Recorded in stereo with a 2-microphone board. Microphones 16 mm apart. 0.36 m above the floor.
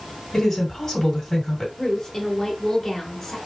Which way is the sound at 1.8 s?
20° left (ahead or behind).